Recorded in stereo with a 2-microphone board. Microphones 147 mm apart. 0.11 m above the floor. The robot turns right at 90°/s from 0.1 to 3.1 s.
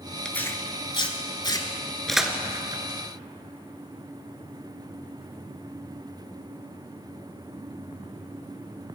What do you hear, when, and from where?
0.2 s tearing paper: 5° left (ahead or behind), 1.1 m; by 2.8 s 30° right (ahead or behind), 1.1 m